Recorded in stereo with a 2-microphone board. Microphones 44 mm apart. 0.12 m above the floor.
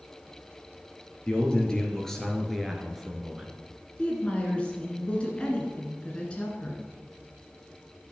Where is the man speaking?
20° left (ahead or behind), 3 m; by 3.5 s 15° right (ahead or behind), 2 m.